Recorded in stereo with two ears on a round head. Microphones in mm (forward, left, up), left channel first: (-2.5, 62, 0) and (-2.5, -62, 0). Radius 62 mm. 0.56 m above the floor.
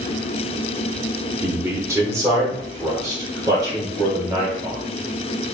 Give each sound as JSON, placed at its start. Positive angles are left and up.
{"t": 1.4, "sound": "a man speaking", "side_deg": -15, "distance_m": 1.0}